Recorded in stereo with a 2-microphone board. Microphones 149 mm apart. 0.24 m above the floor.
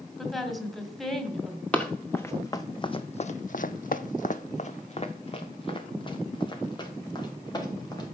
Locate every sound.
0.2 s a woman speaking: centre (ahead or behind), 1.7 m
1.7 s running footsteps: 10° left (ahead or behind), 1.1 m; by 8.1 s 25° left (ahead or behind), 2.5 m